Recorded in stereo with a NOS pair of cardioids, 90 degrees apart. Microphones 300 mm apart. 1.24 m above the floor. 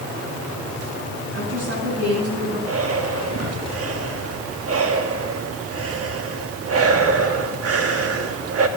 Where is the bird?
No bird in this recording.